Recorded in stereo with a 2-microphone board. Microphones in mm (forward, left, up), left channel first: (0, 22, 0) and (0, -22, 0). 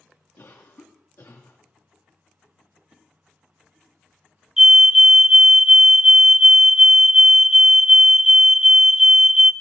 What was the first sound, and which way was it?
A cough, 65° left (ahead or behind).